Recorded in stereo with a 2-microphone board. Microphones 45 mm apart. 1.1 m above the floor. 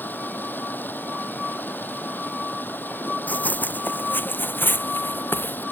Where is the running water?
45° left (ahead or behind).